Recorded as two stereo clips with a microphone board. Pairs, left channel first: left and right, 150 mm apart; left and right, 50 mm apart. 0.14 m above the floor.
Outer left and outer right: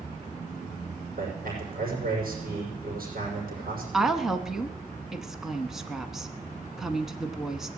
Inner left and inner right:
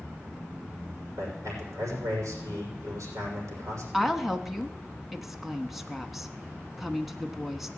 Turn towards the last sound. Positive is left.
turn(degrees=-5)  # may be behind; listen again after turning